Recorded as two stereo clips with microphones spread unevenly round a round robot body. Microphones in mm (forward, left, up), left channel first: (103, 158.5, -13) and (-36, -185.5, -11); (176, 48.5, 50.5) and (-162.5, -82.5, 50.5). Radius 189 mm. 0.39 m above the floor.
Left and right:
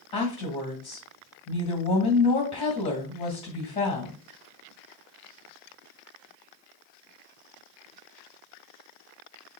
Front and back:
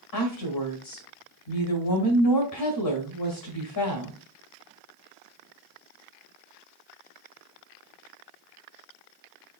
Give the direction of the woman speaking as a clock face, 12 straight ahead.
12 o'clock.